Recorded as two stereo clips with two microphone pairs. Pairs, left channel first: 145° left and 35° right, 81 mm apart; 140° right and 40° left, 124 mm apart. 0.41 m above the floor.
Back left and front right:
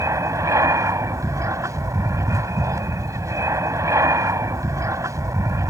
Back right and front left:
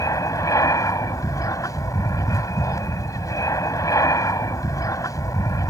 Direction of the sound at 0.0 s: 80° right.